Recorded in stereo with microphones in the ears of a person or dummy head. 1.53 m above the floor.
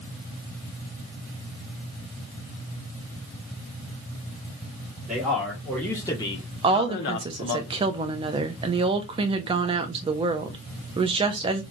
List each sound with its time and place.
5.1 s a man speaking: 5° right (ahead or behind), 2 m; by 7.6 s 70° left (ahead or behind), 1.2 m
6.6 s a woman speaking: 30° right (ahead or behind), 0.7 m